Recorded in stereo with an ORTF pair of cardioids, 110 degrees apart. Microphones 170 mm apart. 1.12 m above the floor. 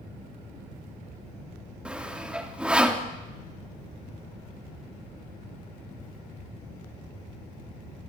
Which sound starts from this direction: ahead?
Sawing, at 1.9 s.